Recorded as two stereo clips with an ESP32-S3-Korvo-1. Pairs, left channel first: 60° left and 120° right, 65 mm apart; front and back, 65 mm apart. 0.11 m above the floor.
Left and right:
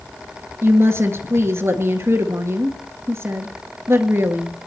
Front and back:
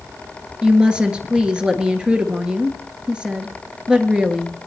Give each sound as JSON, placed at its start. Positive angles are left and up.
{"t": 0.6, "sound": "a woman speaking", "azimuth_deg": -110, "distance_m": 1.6}